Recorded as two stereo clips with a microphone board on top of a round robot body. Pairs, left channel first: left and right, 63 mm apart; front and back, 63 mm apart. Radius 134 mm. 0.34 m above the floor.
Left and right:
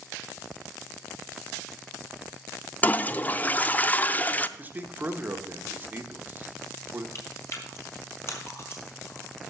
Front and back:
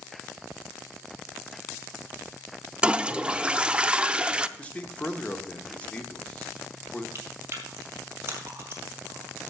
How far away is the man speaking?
About 1.3 m.